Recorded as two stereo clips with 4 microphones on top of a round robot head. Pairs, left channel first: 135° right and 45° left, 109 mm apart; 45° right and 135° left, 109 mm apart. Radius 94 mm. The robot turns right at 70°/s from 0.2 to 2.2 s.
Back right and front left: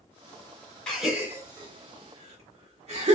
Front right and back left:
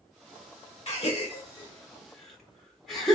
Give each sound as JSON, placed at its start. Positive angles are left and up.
{"t": 0.9, "sound": "a gasp", "azimuth_deg": -55, "distance_m": 1.3}